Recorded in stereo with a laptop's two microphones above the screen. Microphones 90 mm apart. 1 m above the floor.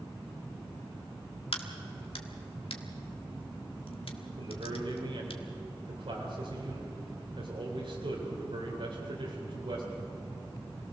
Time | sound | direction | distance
1.5 | a crack | 85° left | 1.5 m
4.4 | a man speaking | 85° right | 4 m